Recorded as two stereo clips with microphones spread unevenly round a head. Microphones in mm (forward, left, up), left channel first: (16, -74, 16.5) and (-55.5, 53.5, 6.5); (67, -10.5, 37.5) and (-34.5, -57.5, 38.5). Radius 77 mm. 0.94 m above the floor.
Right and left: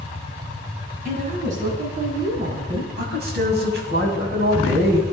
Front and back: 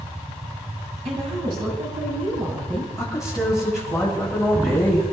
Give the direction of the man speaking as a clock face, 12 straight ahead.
8 o'clock.